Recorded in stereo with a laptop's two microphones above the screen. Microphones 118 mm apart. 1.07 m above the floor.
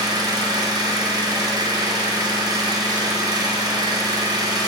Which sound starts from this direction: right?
An engine running, at 0.0 s.